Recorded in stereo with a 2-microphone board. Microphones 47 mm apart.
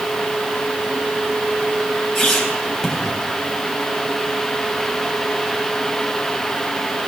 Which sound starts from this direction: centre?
A squeak, at 2.1 s.